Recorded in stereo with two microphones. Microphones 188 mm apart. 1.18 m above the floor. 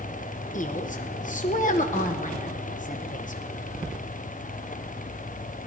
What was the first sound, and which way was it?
A woman speaking, 45° left (ahead or behind).